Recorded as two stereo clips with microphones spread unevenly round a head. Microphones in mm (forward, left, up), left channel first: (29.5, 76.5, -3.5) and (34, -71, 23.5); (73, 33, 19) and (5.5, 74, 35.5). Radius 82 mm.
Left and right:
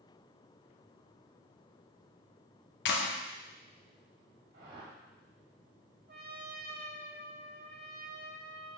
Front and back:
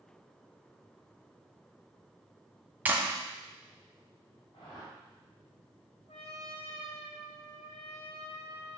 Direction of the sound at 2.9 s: 85° left.